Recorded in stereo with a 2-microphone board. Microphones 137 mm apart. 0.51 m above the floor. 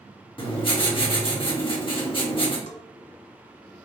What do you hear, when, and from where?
0.4 s writing: 40° left (ahead or behind), 1.3 m
2.7 s a bell: 65° left (ahead or behind), 0.7 m